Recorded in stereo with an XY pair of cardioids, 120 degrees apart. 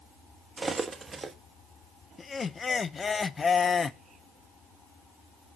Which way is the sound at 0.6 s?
25° right.